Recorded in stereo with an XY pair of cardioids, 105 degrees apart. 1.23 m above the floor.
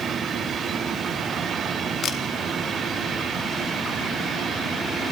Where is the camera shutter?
60° left, 3 m.